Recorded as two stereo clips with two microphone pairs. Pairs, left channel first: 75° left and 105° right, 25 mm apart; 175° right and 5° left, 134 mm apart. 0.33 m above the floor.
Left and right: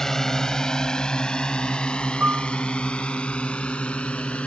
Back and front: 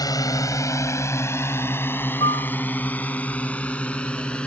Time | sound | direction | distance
0.0 | a drone | 130° left | ?
2.2 | a piano | 125° right | ?